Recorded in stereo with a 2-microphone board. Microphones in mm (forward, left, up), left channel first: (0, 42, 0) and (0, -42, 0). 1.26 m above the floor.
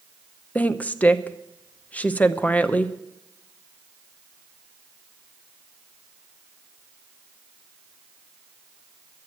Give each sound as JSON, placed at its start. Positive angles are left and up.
{"t": 0.6, "sound": "a woman speaking", "side_deg": 20, "distance_m": 0.7}